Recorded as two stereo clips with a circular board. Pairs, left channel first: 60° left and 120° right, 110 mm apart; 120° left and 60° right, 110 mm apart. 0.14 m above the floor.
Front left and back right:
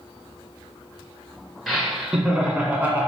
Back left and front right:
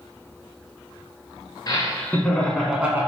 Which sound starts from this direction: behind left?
Laughter, at 1.7 s.